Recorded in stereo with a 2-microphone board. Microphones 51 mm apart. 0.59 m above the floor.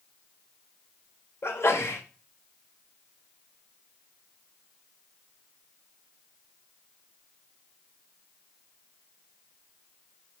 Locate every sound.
1.4 s a sneeze: 60° left (ahead or behind), 1.9 m